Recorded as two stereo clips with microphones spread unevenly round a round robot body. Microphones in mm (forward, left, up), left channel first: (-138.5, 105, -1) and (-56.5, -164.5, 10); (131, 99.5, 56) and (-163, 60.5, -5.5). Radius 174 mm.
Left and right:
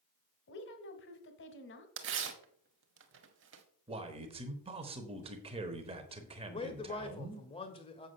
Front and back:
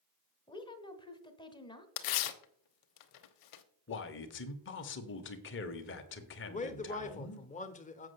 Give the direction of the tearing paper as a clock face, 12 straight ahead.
1 o'clock.